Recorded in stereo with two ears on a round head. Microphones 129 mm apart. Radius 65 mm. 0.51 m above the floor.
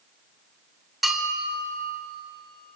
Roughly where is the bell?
Centre.